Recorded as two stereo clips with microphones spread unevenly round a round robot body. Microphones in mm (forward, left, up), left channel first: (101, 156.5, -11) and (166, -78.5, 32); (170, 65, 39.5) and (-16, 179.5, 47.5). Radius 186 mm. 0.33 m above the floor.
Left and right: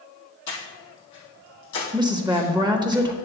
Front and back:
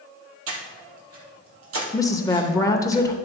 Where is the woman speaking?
5° right, 0.8 m.